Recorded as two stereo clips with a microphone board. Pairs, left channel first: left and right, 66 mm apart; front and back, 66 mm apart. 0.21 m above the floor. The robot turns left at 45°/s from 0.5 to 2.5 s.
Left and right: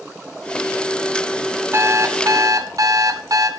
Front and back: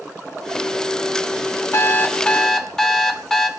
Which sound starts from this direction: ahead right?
An alarm clock, at 1.7 s.